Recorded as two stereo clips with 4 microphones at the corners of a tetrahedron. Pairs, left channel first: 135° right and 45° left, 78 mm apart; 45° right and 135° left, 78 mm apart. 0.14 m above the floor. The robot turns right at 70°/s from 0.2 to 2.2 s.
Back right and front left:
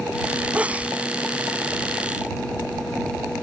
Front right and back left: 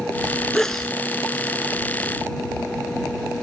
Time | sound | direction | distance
0.5 | a sneeze | 20° left | ?